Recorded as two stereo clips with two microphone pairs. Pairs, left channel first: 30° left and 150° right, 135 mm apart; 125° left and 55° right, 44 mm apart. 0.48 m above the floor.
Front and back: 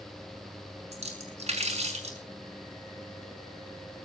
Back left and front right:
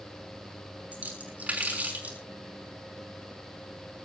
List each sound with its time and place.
0.9 s a splash: 110° right, 5.5 m